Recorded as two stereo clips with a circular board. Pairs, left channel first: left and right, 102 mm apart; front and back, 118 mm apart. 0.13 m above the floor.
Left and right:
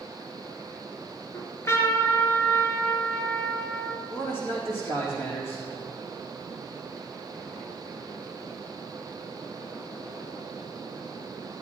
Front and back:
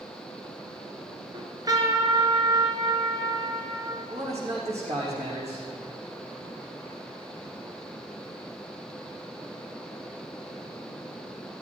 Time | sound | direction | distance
1.3 | a trumpet | 140° left | 2 m
4.1 | a man speaking | 155° left | 6 m